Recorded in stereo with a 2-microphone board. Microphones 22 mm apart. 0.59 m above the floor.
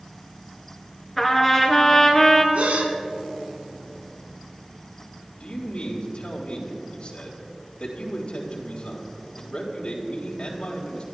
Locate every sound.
1.2 s a trumpet: 5° left (ahead or behind), 2 m
2.5 s a gasp: 75° right (ahead or behind), 1.7 m
5.4 s a man speaking: 45° left (ahead or behind), 3.5 m